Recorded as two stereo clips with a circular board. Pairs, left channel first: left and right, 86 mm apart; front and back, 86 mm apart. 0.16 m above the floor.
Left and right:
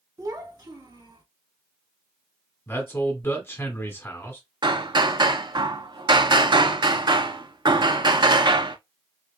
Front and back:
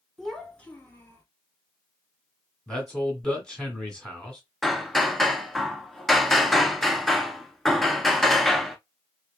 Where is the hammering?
90° right, 0.5 m.